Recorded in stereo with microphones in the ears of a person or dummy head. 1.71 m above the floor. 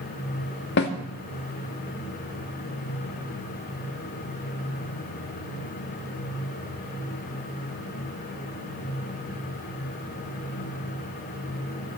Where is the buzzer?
I don't hear a buzzer.